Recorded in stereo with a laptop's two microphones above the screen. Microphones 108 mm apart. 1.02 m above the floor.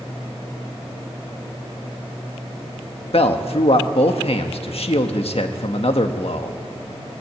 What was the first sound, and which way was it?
A man speaking, 65° left (ahead or behind).